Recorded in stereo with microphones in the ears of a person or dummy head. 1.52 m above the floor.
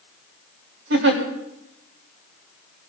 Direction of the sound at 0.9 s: 70° right (ahead or behind).